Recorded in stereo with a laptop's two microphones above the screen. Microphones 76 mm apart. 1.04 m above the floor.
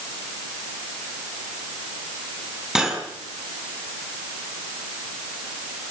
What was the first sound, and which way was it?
Cutlery clinking, 5° right (ahead or behind).